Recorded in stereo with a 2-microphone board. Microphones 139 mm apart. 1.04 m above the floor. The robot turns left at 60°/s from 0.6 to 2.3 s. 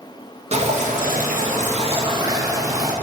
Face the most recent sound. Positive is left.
turn(degrees=-155)